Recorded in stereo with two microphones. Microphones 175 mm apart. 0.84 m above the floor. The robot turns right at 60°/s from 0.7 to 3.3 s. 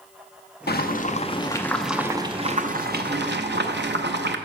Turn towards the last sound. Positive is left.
turn(degrees=-90)